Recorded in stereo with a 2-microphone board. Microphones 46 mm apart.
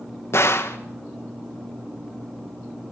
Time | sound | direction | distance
0.3 | a gunshot | 65° left (ahead or behind) | 1.9 m